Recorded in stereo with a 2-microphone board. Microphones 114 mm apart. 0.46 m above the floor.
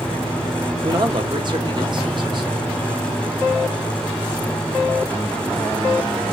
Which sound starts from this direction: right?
A man speaking, at 0.8 s.